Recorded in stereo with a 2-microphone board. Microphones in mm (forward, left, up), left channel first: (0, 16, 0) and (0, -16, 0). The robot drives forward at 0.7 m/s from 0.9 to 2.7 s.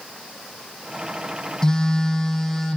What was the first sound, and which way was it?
A phone buzzing, 25° left (ahead or behind).